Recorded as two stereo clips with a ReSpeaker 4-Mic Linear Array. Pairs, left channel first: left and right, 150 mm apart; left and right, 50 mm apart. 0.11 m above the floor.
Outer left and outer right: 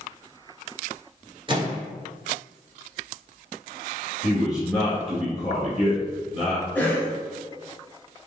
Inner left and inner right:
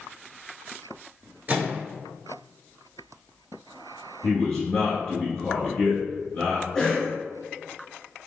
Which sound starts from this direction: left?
A man speaking, at 4.2 s.